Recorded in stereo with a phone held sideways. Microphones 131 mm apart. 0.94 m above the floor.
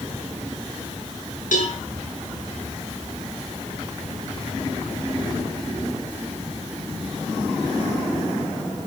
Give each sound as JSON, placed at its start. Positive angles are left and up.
{"t": 1.5, "sound": "a cowbell", "side_deg": 75, "distance_m": 5.0}